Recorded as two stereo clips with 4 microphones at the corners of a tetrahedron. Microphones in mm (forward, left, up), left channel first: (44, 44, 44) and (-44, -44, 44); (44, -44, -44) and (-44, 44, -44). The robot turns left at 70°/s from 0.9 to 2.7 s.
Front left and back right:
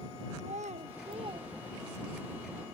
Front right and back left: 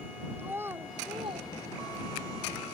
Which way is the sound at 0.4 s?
155° right.